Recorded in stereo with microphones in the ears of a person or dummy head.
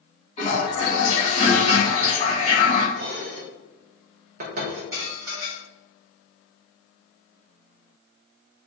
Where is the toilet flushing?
35° left (ahead or behind), 1.1 m.